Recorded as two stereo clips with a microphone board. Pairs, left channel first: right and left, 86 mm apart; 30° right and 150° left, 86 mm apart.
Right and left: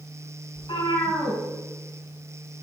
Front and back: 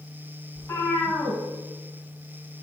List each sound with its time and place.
0.6 s a cat meowing: 95° right, 4.5 m